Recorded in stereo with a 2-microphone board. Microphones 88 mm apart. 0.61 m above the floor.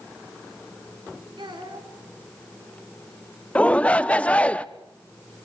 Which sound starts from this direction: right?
A child speaking, at 1.4 s.